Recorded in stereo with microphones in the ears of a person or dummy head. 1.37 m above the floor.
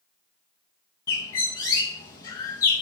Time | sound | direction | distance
1.1 | a bird | 20° left (ahead or behind) | 0.6 m